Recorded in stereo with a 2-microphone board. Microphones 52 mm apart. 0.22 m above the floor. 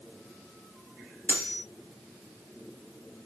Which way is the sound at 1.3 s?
35° left (ahead or behind).